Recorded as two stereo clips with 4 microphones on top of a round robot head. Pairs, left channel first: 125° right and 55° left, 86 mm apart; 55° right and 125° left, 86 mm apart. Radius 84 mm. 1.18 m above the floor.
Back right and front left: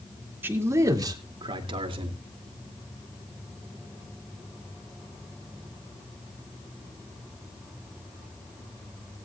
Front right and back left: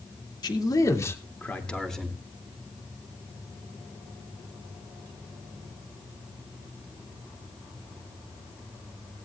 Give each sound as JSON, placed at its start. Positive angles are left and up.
{"t": 0.4, "sound": "a man speaking", "azimuth_deg": -15, "distance_m": 2.5}